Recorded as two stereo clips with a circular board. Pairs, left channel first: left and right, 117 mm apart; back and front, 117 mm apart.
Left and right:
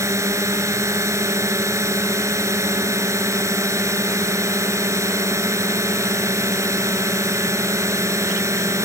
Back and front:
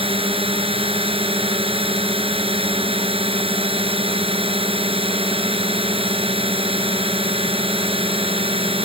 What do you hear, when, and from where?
0.0 s a drone: 30° right